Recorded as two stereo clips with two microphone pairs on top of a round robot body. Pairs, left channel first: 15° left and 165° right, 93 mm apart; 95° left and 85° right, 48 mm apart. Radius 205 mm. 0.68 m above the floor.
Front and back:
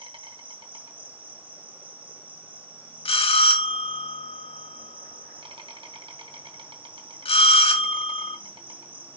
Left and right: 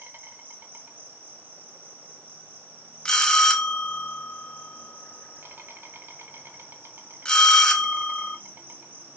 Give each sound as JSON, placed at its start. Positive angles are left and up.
{"t": 0.0, "sound": "an insect", "azimuth_deg": -130, "distance_m": 2.0}
{"t": 3.0, "sound": "a bell", "azimuth_deg": 20, "distance_m": 1.8}